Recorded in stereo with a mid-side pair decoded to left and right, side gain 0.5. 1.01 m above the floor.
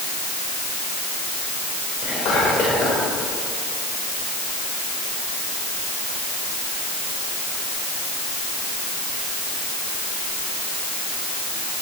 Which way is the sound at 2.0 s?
55° left.